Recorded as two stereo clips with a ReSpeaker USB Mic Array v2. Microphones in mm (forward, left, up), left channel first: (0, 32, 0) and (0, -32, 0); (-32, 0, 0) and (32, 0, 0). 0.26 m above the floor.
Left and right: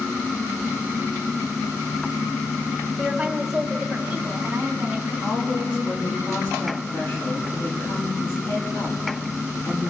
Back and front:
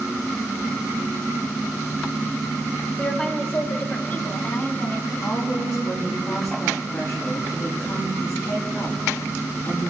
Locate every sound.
3.0 s a woman speaking: 175° left, 1.2 m; by 5.1 s 145° right, 2 m
5.2 s a woman speaking: 145° left, 6 m